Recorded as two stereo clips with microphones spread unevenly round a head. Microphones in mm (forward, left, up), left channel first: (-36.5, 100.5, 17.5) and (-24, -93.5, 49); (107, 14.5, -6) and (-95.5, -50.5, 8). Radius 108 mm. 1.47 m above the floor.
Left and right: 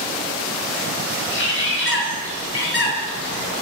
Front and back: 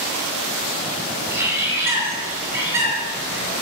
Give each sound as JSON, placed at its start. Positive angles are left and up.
{"t": 1.3, "sound": "a bird", "azimuth_deg": 120, "distance_m": 7.5}